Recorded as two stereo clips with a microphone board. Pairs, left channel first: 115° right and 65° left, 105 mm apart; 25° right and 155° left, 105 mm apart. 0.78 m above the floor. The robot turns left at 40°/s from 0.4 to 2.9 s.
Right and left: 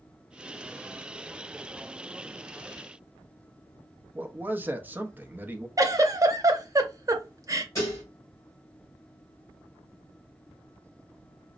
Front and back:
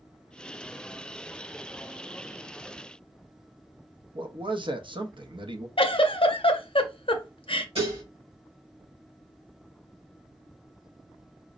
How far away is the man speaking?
About 0.6 m.